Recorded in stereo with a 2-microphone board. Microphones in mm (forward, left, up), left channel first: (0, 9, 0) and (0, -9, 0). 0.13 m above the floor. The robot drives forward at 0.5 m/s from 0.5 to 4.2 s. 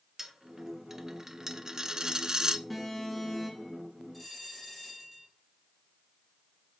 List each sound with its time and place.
0.2 s a dropped coin: 20° right (ahead or behind), 1.1 m; by 2.6 s 35° right (ahead or behind), 0.6 m
2.7 s an alarm: centre (ahead or behind), 2.5 m
4.1 s a bell: 5° right (ahead or behind), 3 m